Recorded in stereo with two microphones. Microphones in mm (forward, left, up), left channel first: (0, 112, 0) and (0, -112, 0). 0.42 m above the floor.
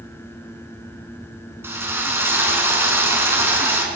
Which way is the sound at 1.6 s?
10° right (ahead or behind).